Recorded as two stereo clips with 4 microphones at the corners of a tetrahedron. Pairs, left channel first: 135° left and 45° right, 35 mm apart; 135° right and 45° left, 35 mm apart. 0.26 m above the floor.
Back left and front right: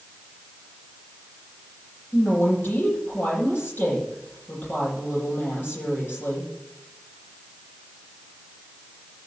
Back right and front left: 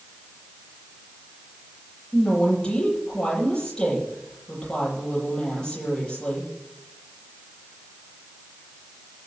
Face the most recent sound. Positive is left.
turn(degrees=155)